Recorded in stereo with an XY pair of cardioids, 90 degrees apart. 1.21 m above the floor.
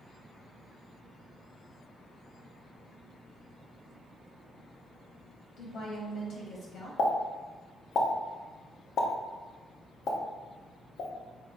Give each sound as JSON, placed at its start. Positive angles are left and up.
{"t": 5.6, "sound": "a woman speaking", "azimuth_deg": 65, "distance_m": 1.0}
{"t": 7.0, "sound": "a pop", "azimuth_deg": 65, "distance_m": 0.6}